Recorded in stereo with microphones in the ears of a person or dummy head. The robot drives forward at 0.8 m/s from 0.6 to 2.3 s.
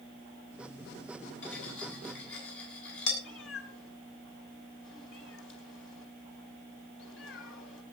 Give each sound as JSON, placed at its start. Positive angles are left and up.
{"t": 1.4, "sound": "cutlery clinking", "side_deg": 80, "distance_m": 6.5}
{"t": 3.2, "sound": "a cat meowing", "side_deg": 80, "distance_m": 3.5}